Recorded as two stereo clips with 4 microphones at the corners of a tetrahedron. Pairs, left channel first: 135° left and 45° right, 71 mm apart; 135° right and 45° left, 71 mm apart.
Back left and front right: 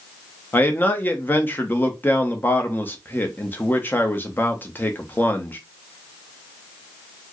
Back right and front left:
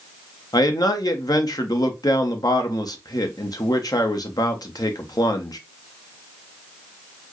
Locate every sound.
0.5 s a man speaking: 165° right, 0.9 m